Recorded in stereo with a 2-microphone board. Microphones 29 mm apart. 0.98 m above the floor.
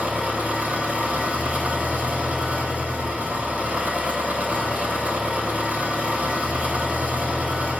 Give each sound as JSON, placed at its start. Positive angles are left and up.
{"t": 0.0, "sound": "an engine running", "side_deg": -50, "distance_m": 4.5}